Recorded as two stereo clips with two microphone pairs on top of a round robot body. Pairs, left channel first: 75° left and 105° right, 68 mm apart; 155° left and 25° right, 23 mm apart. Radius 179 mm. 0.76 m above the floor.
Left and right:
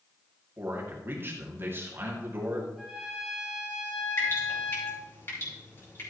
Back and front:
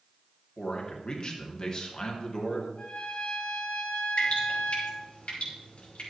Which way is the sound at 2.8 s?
170° left.